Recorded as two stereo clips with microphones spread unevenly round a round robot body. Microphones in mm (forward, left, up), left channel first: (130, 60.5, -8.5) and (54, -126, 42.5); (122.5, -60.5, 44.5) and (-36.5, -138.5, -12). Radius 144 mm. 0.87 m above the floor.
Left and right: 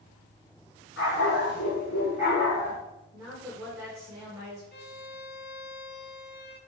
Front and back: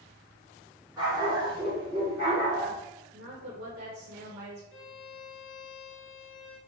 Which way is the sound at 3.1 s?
165° left.